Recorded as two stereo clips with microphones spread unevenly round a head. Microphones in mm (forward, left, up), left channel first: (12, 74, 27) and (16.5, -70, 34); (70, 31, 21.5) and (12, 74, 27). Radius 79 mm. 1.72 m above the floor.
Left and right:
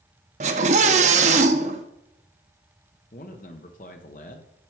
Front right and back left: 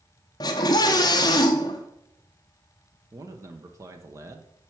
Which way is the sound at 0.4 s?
70° right.